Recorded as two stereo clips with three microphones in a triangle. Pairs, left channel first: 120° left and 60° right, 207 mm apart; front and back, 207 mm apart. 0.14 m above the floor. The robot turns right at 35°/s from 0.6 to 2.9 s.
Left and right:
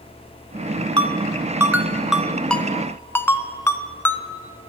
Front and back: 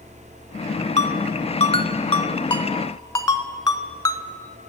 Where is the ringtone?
15° right, 0.7 m; by 4.2 s 50° left, 0.7 m.